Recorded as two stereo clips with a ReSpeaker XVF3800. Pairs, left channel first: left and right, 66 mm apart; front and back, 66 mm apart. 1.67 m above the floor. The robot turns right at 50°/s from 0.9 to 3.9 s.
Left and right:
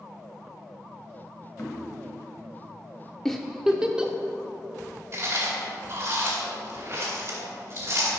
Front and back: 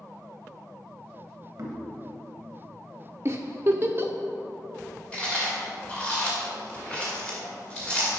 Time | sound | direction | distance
1.6 | knocking | 150° left | 1.6 m
3.2 | a giggle | 175° left | 0.6 m
5.1 | chewing | 65° right | 2 m